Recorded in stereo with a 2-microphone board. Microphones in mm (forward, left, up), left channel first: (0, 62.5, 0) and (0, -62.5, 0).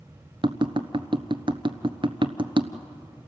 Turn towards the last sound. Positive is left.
turn(degrees=-45)  # may be behind; listen again after turning